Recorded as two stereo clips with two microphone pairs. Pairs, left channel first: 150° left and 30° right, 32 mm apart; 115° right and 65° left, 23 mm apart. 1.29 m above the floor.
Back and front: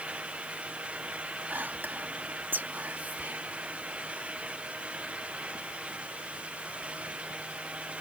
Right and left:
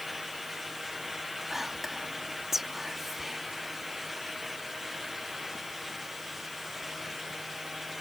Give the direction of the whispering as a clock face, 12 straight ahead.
12 o'clock.